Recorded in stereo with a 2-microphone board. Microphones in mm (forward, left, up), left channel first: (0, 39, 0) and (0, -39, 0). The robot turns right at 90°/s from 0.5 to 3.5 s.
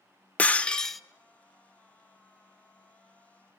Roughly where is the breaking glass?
Centre.